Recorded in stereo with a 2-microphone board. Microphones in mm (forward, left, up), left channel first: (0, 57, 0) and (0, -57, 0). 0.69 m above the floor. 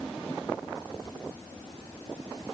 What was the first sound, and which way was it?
Only background noise.